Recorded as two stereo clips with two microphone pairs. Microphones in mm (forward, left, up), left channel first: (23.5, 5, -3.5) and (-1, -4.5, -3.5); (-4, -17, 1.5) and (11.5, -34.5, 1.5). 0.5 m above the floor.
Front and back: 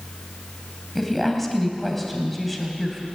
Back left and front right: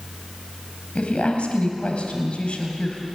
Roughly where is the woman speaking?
Left.